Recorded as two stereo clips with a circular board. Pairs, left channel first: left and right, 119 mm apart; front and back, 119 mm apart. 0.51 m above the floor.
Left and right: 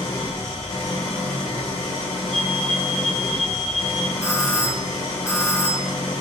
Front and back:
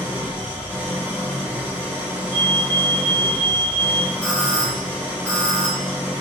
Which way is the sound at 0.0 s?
105° left.